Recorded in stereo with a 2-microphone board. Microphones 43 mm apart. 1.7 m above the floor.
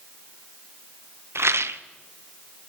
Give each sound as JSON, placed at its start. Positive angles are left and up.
{"t": 1.4, "sound": "a rattle", "side_deg": -80, "distance_m": 0.8}